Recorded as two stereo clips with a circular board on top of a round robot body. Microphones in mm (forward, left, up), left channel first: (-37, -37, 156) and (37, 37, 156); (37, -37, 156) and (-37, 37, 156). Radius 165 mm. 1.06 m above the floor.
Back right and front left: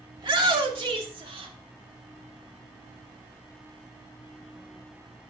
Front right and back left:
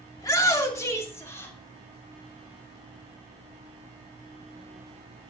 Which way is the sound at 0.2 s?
10° left.